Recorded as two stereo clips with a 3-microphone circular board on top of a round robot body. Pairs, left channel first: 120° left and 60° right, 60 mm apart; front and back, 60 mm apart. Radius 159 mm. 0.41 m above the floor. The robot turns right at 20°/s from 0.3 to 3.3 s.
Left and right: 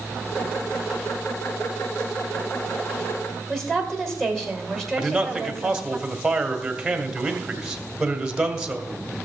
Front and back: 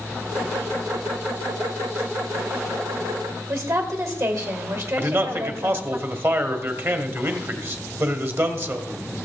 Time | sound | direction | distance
3.5 | a woman speaking | 155° right | 3 m
5.0 | a man speaking | 140° right | 1.7 m